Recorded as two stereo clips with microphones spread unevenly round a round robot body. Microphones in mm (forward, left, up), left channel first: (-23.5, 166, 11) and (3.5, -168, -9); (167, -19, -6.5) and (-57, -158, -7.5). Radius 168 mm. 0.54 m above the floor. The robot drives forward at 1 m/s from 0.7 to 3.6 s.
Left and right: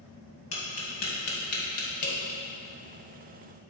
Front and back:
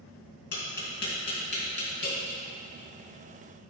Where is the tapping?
55° left, 2.5 m; by 2.4 s 95° left, 2 m.